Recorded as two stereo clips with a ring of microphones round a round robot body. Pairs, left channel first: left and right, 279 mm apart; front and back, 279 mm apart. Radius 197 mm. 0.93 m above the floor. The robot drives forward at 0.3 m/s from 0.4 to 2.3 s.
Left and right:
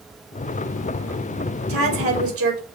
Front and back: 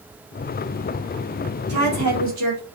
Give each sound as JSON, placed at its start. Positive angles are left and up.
{"t": 1.7, "sound": "a woman speaking", "azimuth_deg": -130, "distance_m": 1.9}